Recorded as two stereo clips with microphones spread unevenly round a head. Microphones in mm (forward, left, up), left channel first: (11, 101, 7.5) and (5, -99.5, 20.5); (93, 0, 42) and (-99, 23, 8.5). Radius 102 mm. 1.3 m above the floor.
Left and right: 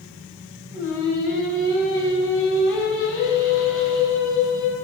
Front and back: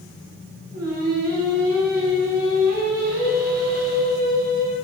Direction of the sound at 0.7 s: 170° left.